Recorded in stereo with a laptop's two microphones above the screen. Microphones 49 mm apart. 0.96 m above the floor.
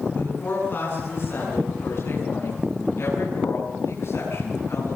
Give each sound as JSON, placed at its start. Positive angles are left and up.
{"t": 0.1, "sound": "a woman speaking", "side_deg": 45, "distance_m": 8.5}